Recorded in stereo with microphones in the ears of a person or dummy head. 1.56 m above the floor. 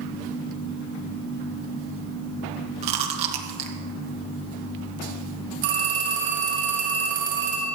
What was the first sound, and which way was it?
Chewing, 35° right (ahead or behind).